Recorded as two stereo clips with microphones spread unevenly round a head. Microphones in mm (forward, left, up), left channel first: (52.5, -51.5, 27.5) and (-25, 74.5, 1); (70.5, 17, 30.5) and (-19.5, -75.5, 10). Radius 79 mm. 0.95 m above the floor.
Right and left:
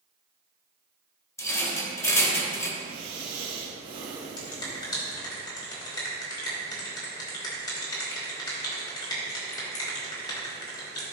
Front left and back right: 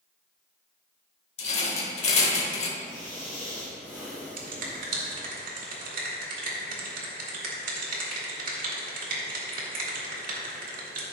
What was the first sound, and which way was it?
A rattle, 10° left.